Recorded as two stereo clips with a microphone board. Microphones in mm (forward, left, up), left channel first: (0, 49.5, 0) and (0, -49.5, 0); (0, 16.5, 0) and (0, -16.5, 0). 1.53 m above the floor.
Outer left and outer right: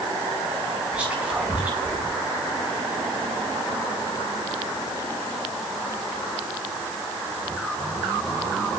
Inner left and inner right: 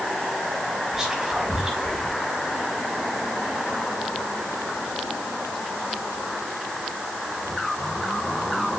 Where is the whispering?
10° right (ahead or behind), 5.5 m.